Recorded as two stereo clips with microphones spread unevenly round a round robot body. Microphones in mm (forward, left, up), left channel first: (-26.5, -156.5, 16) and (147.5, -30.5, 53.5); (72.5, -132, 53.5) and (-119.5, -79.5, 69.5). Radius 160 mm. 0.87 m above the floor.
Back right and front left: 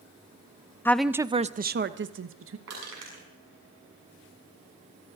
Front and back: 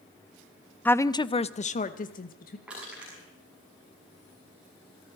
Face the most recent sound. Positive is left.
turn(degrees=80)